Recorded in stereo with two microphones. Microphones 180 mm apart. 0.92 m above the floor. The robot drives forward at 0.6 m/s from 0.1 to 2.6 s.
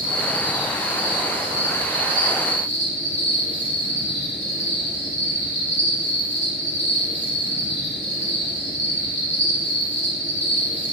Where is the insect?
20° left (ahead or behind), 1.3 m; by 10.9 s 10° left (ahead or behind), 2.5 m.